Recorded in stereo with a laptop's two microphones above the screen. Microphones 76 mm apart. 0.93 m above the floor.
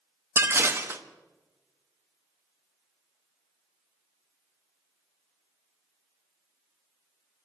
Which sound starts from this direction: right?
Dishes clattering, at 0.4 s.